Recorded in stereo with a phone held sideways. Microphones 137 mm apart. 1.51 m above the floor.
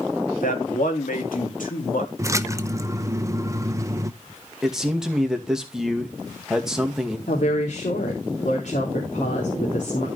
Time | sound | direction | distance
0.4 | a man speaking | 85° left | 2.5 m
2.2 | a splash | 20° right (ahead or behind) | 0.7 m
4.6 | a man speaking | 5° right (ahead or behind) | 2 m
7.3 | a woman speaking | 75° left (ahead or behind) | 3 m